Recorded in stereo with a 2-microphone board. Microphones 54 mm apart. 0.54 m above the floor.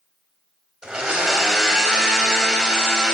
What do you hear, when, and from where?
0.8 s a blender: 15° right (ahead or behind), 3 m